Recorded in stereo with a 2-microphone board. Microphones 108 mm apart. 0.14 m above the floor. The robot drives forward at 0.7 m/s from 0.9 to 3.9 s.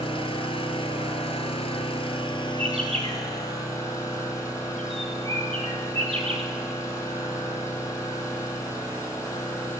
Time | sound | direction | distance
0.0 | an engine running | 60° left (ahead or behind) | 1.1 m
2.6 | a bird | 65° right (ahead or behind) | 2 m